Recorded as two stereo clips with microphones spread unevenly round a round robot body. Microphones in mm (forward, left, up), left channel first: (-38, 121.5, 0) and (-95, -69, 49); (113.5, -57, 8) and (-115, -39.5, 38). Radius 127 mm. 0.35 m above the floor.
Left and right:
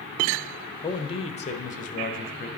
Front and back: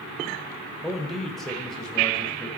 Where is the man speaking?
75° left, 1.0 m.